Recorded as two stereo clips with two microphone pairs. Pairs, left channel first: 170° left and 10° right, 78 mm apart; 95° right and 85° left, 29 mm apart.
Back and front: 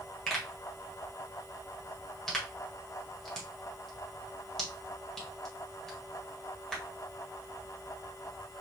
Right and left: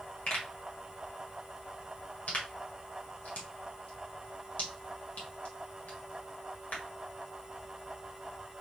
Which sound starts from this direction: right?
A pop, at 0.3 s.